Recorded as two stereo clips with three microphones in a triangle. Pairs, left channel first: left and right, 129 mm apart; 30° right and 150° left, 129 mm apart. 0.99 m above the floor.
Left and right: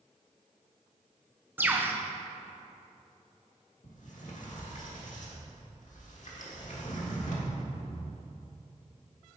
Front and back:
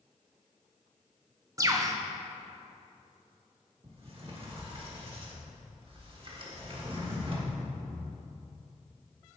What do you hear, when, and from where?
1.6 s a bird: 155° right, 0.5 m
3.8 s a sliding door: 105° left, 1.3 m